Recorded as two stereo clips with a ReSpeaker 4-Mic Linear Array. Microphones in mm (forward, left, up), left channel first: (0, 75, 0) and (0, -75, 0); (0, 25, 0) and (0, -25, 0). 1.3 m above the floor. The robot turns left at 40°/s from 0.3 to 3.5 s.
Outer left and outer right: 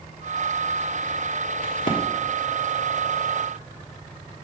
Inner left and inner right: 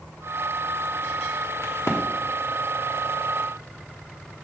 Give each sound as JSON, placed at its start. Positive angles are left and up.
{"t": 1.6, "sound": "a crack", "side_deg": 65, "distance_m": 1.4}